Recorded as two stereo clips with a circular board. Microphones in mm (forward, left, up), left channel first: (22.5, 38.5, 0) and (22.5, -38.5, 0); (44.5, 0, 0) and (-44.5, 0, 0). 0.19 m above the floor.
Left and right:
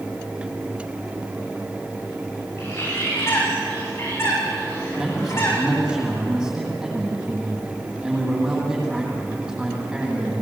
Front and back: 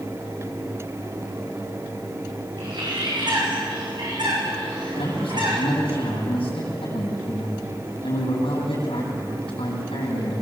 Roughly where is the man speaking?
Ahead.